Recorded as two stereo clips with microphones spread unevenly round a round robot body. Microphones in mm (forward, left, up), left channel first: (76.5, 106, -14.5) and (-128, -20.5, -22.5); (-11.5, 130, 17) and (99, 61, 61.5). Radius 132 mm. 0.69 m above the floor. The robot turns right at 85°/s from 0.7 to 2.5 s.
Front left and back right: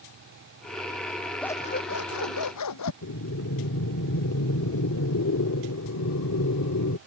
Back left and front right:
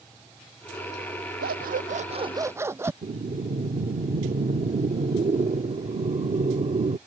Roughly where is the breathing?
Ahead.